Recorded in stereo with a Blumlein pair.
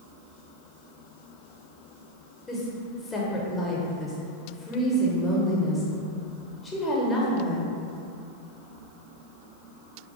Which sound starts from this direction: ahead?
A woman speaking, at 2.5 s.